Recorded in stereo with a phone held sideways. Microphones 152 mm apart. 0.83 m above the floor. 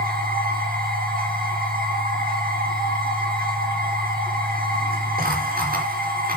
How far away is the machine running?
About 4.5 m.